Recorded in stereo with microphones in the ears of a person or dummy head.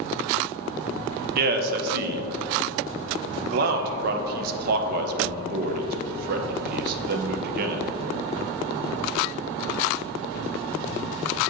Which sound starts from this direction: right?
A man speaking, at 1.4 s.